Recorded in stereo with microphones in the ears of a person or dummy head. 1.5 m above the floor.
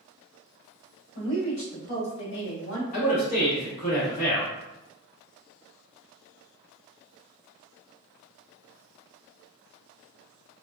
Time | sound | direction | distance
1.1 | a woman speaking | 40° left (ahead or behind) | 1.7 m
2.9 | a man speaking | 45° left (ahead or behind) | 1.2 m